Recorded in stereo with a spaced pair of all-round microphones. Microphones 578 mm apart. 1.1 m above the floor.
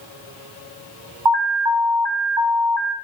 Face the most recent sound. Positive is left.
turn(degrees=-45)  # may be behind; listen again after turning